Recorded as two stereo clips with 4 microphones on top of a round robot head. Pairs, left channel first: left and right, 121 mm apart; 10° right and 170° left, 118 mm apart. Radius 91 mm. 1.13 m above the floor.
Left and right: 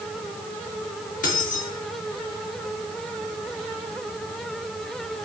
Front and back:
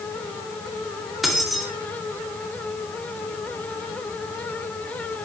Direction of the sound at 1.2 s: 80° left.